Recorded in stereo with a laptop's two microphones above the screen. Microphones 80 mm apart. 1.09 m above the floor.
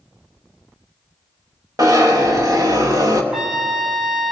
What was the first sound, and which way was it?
A zipper, 50° right (ahead or behind).